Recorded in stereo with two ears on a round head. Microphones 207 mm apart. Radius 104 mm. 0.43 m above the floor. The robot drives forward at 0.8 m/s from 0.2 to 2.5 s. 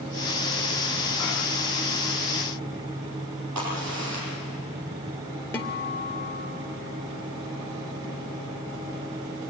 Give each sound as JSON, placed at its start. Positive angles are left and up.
{"t": 3.5, "sound": "a crack", "side_deg": -90, "distance_m": 8.5}
{"t": 5.5, "sound": "a guitar", "side_deg": 10, "distance_m": 2.0}